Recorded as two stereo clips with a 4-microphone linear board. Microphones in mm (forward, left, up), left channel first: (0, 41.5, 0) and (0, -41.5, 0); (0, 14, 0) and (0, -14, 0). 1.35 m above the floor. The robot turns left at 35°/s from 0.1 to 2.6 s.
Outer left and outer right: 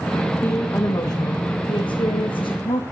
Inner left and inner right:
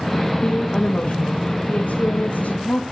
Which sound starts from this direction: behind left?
A woman speaking, at 0.4 s.